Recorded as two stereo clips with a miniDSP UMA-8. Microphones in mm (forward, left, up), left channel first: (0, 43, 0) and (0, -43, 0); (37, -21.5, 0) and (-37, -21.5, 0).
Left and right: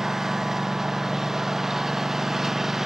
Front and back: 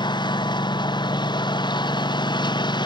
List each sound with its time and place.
0.0 s a lawn mower: 5° right